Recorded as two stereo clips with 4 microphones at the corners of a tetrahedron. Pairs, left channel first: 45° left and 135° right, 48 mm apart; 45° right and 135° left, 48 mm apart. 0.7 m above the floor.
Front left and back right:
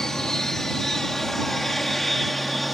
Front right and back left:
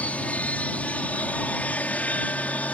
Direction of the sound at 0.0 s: 25° right.